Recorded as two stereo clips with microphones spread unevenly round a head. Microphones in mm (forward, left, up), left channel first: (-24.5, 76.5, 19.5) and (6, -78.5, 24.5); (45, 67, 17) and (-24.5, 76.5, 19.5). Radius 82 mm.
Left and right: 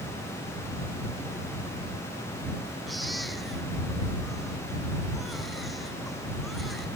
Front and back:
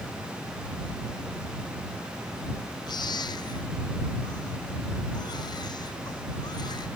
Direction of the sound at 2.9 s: 10° left.